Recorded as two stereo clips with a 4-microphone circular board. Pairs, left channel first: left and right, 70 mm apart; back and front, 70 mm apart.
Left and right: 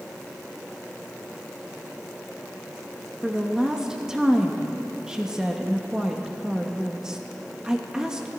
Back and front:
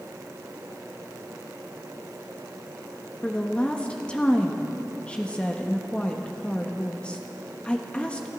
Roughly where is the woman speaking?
Behind right.